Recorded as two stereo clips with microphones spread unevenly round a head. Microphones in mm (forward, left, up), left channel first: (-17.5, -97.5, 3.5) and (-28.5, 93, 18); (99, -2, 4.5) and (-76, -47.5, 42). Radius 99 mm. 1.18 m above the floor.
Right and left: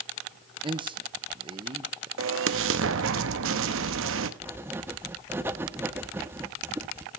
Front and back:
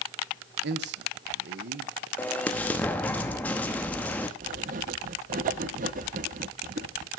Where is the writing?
165° left, 0.7 m.